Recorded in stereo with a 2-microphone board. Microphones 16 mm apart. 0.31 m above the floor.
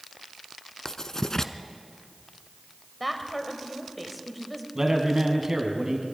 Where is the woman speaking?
5° left (ahead or behind), 1.7 m.